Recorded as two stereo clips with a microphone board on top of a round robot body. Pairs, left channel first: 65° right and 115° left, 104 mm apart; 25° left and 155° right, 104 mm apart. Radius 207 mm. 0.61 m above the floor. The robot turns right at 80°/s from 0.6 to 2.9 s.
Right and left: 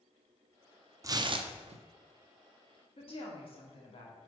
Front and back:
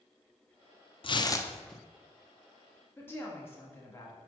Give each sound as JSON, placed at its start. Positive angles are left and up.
{"t": 1.0, "sound": "tearing paper", "azimuth_deg": 55, "distance_m": 0.7}
{"t": 3.0, "sound": "a woman speaking", "azimuth_deg": -45, "distance_m": 1.8}